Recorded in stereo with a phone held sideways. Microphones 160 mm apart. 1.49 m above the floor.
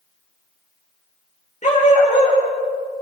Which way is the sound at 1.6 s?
45° left (ahead or behind).